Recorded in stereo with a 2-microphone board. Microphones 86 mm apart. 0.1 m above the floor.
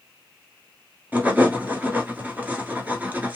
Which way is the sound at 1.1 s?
20° right (ahead or behind).